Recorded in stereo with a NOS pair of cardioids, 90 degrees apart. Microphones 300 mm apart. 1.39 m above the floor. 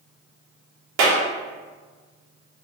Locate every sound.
1.0 s a clap: 65° right, 2.5 m